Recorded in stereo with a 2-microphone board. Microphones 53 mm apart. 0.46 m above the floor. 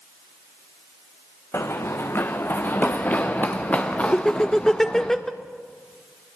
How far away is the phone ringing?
I don't hear a phone ringing.